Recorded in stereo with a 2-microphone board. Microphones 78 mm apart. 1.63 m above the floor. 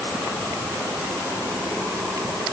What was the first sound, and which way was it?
Only background noise.